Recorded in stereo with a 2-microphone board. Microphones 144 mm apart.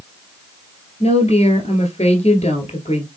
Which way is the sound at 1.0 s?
50° left (ahead or behind).